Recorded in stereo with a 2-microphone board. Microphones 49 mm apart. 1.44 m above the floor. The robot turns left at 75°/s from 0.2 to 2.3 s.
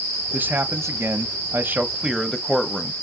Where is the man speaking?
35° right, 0.6 m; by 2.9 s straight behind, 0.6 m.